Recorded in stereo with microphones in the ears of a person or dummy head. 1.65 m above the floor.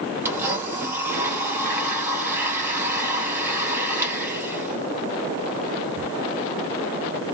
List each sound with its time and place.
0.2 s a blender: 10° right (ahead or behind), 1.7 m